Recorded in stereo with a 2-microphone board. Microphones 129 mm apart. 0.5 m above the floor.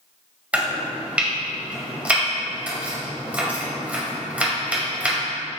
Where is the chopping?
10° right (ahead or behind), 1.6 m.